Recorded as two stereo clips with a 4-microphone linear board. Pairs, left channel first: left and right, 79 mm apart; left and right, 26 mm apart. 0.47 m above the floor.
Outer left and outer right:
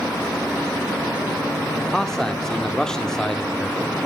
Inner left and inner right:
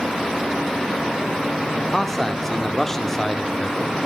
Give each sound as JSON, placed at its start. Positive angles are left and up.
{"t": 1.8, "sound": "a man speaking", "side_deg": 5, "distance_m": 0.8}